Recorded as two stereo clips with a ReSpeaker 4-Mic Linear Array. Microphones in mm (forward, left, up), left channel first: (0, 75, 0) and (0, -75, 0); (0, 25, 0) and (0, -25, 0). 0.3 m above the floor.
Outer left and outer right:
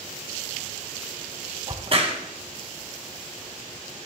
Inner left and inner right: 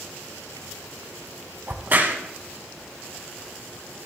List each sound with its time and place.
1.7 s a crack: 45° right (ahead or behind), 1.6 m